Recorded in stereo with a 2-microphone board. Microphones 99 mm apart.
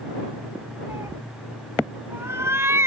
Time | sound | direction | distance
0.9 | a cat meowing | 30° right (ahead or behind) | ?